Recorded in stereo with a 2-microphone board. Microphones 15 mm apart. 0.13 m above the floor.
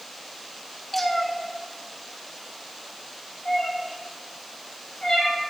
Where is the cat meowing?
5° left (ahead or behind), 0.8 m; by 5.4 s 80° left, 4 m.